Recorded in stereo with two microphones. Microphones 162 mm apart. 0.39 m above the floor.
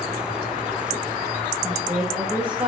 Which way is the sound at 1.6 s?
10° right (ahead or behind).